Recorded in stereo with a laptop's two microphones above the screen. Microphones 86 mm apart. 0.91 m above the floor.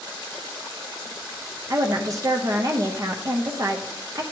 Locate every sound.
1.7 s a woman speaking: 40° right (ahead or behind), 0.6 m